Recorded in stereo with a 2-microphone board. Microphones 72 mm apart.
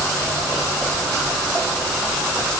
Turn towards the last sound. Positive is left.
No sound to turn to.